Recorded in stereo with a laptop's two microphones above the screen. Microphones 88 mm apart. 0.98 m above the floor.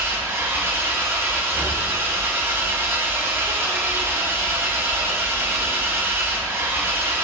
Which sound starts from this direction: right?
An engine running, at 0.0 s.